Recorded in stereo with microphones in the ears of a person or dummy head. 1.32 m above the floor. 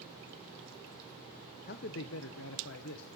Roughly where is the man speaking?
Left.